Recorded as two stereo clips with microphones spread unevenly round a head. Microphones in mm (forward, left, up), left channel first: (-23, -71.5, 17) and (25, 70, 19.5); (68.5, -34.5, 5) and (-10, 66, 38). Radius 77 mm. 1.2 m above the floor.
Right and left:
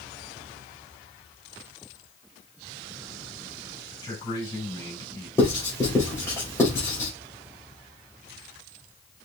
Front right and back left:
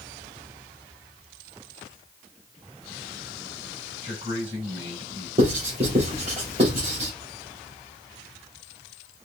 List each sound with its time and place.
4.0 s a man speaking: 175° right, 4 m
5.4 s writing: straight behind, 3 m